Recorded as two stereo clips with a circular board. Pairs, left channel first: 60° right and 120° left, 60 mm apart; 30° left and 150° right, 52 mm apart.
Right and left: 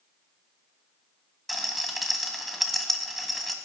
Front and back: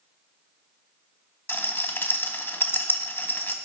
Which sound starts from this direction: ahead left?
A rattle, at 1.5 s.